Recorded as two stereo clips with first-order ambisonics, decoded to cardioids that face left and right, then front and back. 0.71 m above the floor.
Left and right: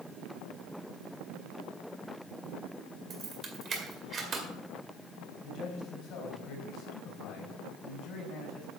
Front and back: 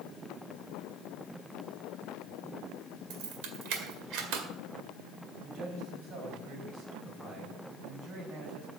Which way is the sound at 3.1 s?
155° right.